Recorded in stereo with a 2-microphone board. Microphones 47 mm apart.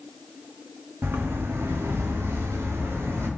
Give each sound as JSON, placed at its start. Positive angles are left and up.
{"t": 1.0, "sound": "footsteps", "side_deg": -55, "distance_m": 0.7}